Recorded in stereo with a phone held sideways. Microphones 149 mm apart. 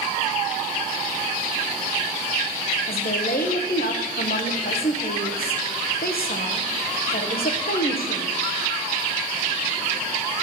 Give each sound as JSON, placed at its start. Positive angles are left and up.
{"t": 2.9, "sound": "a woman speaking", "side_deg": 80, "distance_m": 1.1}